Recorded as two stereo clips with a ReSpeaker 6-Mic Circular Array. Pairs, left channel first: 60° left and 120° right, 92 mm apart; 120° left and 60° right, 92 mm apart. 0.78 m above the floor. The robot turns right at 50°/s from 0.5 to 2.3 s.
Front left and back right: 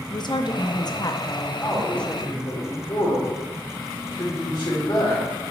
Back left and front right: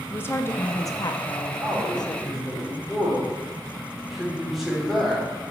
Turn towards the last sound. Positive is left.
turn(degrees=25)